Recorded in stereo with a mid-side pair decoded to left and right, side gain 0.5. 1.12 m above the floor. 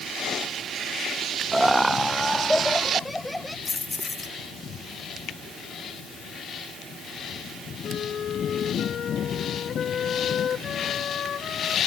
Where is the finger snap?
65° left.